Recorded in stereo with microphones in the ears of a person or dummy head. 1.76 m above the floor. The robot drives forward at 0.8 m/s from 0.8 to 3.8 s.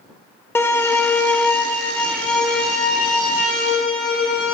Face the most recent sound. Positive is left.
turn(degrees=5)  # may be behind; listen again after turning